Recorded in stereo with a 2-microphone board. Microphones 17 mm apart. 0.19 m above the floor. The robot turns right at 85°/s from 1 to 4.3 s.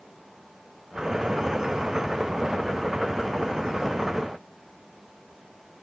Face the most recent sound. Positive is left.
No sound to turn to.